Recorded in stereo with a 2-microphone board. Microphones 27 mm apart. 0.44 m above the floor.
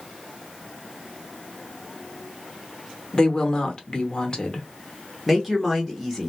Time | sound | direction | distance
3.1 | a woman speaking | 30° left (ahead or behind) | 0.9 m
5.3 | a woman speaking | 5° right (ahead or behind) | 0.8 m